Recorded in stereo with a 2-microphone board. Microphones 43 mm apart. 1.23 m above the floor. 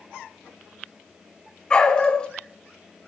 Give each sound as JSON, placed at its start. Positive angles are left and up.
{"t": 1.7, "sound": "a dog barking", "side_deg": 20, "distance_m": 1.5}